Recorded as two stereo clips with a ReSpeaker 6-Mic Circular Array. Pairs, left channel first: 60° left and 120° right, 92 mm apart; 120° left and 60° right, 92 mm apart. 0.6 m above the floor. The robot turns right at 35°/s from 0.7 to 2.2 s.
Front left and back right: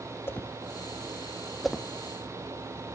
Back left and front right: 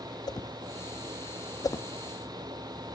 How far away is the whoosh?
About 0.5 m.